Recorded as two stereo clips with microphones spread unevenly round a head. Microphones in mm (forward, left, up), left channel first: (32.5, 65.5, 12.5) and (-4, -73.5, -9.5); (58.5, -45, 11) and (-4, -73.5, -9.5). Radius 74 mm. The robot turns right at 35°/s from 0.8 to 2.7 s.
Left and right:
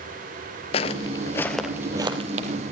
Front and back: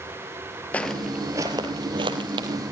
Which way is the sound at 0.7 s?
75° left.